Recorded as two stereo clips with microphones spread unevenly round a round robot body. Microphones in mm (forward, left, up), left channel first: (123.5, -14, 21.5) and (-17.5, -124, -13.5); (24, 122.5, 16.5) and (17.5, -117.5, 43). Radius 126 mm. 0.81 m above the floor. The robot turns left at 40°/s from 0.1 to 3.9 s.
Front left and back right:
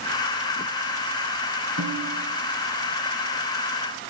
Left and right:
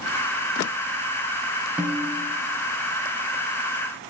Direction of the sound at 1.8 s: 175° right.